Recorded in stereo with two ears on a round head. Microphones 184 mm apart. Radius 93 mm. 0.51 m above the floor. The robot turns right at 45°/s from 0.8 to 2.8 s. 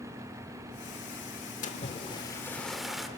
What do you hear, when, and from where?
1.6 s a splash: 130° left, 1.5 m; by 3.1 s straight behind, 1.5 m